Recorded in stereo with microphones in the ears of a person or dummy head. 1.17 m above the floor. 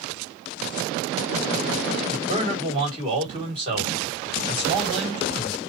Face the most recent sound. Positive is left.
turn(degrees=-30)  # may be behind; listen again after turning